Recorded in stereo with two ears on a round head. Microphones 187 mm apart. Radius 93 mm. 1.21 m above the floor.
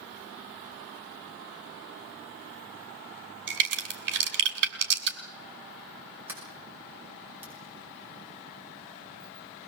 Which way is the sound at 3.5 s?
55° right (ahead or behind).